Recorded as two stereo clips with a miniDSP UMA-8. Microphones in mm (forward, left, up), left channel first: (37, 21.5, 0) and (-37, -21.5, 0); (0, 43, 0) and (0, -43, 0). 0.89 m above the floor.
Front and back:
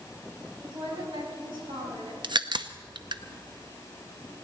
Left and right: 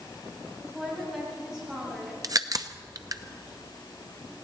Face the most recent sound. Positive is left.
turn(degrees=-130)